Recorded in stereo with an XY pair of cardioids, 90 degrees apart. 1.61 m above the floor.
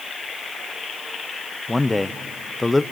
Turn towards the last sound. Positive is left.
turn(degrees=15)